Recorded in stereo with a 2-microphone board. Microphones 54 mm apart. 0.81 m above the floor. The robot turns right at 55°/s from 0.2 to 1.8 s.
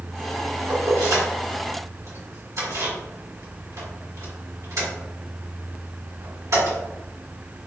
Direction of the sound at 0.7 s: 50° right (ahead or behind).